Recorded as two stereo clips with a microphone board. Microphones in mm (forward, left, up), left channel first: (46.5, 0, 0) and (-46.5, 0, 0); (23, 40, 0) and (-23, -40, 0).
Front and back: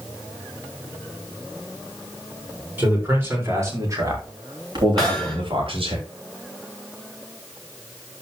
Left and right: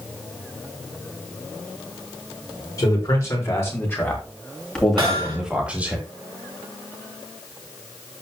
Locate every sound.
2.8 s a man speaking: 110° left, 5 m; by 6.0 s 165° left, 3 m
5.0 s hammering: 85° right, 4 m